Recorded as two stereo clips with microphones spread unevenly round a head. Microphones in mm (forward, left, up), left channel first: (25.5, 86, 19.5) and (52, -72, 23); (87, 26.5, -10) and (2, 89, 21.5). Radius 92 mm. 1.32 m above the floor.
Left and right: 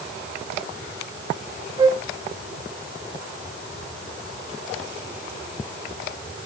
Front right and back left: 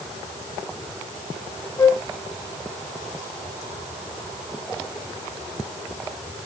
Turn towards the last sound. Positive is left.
turn(degrees=-110)